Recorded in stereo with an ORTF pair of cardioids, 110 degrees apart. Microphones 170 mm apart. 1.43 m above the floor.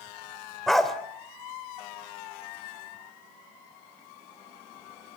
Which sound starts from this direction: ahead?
A dog barking, at 0.7 s.